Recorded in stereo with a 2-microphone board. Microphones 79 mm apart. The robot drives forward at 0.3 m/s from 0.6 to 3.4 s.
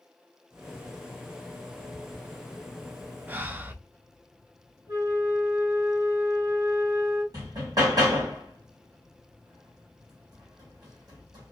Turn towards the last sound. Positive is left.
turn(degrees=-55)  # may be behind; listen again after turning